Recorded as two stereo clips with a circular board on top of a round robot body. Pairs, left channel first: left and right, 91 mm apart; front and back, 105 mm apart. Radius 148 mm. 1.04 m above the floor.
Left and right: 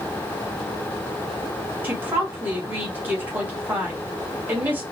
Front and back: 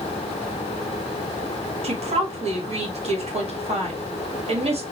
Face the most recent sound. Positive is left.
turn(degrees=-160)